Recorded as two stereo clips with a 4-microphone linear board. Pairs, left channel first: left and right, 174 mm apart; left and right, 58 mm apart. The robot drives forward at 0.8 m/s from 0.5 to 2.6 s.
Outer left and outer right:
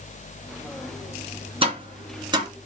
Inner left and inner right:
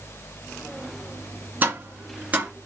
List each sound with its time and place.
1.6 s tapping: 30° right (ahead or behind), 2 m; by 2.5 s 25° right (ahead or behind), 3 m